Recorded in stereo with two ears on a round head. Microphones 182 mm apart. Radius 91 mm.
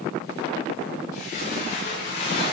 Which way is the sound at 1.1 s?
40° left (ahead or behind).